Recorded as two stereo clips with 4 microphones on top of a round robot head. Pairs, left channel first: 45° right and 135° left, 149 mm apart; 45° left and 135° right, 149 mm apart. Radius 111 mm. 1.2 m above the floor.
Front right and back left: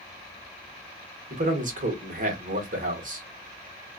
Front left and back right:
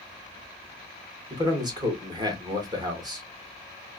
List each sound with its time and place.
1.3 s a man speaking: 165° left, 1.6 m